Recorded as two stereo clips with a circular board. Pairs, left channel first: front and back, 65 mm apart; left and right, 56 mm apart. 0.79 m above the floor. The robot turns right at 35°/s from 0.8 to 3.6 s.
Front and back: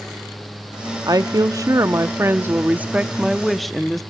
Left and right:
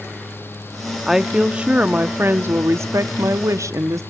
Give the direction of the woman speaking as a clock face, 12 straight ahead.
6 o'clock.